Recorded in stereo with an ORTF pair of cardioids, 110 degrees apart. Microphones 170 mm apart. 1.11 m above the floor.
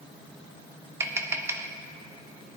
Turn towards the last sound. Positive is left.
turn(degrees=-15)